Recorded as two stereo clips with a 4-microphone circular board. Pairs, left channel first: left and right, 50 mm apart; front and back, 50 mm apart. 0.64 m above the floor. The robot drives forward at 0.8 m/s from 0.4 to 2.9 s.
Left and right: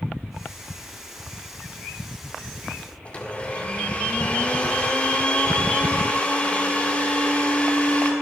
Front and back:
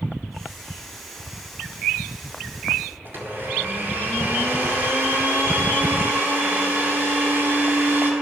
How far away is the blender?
About 2.0 m.